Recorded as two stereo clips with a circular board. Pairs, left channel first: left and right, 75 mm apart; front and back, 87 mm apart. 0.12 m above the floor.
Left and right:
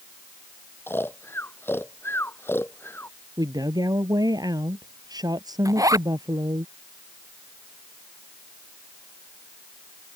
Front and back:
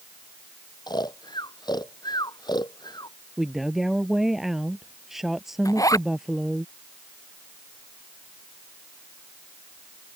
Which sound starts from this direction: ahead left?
Snoring, at 0.9 s.